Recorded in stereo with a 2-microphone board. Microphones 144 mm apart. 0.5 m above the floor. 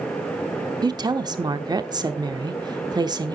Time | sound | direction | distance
0.8 | a woman speaking | 30° right (ahead or behind) | 0.8 m